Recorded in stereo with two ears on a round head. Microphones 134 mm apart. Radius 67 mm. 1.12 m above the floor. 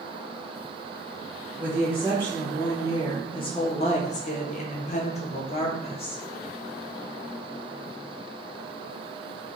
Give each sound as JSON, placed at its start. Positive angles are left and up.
{"t": 1.6, "sound": "a woman speaking", "side_deg": 5, "distance_m": 1.5}